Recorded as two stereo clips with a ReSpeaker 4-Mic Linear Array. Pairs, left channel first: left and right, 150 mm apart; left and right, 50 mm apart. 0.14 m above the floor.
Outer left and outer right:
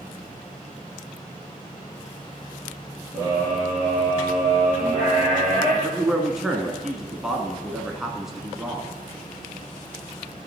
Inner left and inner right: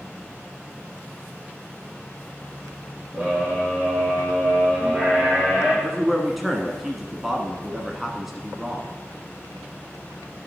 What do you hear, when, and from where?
3.1 s a scream: 25° right (ahead or behind), 4 m; by 5.7 s 5° right (ahead or behind), 5.5 m
5.8 s a man speaking: 5° right (ahead or behind), 1.1 m